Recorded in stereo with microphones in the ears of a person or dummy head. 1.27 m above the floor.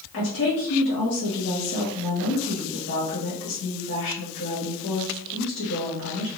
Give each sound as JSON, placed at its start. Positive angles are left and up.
{"t": 0.1, "sound": "a woman speaking", "side_deg": 70, "distance_m": 1.5}